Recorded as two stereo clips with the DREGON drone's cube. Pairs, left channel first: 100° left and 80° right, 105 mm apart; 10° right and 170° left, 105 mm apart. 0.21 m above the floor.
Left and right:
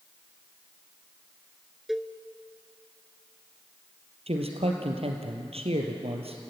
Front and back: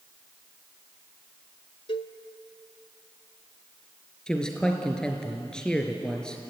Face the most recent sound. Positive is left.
turn(degrees=-95)